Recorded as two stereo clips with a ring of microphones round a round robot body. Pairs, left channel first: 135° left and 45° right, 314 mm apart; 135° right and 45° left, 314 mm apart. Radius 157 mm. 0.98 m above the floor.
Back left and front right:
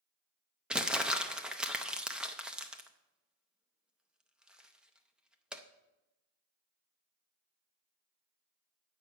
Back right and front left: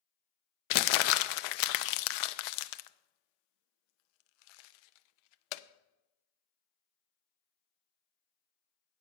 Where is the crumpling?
135° right, 0.6 m.